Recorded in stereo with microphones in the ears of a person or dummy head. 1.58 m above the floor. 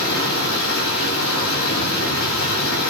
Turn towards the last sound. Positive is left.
turn(degrees=70)  # may be behind; listen again after turning